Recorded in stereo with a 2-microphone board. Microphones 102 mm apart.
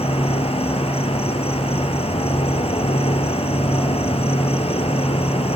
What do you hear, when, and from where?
0.0 s an insect: 75° left (ahead or behind), 4 m